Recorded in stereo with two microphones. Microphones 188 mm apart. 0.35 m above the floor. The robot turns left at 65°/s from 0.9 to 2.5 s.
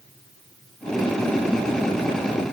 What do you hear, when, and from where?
Only background noise.